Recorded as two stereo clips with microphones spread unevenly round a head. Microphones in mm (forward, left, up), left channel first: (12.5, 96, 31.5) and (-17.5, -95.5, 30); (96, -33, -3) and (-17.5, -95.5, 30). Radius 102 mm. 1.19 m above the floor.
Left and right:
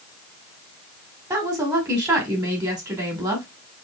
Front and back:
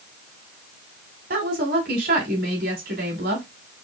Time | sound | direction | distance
1.3 | a woman speaking | 170° right | 2 m